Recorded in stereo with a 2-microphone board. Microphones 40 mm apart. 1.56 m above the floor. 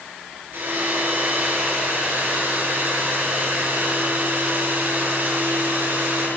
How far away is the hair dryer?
About 9 m.